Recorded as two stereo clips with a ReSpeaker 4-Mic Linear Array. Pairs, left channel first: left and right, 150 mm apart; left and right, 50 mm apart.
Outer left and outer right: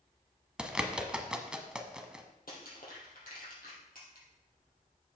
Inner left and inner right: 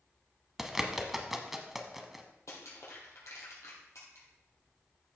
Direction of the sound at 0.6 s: 5° right (ahead or behind).